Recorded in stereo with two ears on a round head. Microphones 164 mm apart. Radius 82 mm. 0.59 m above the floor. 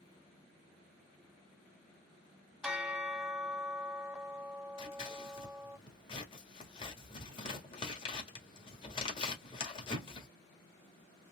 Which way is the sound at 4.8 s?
30° left (ahead or behind).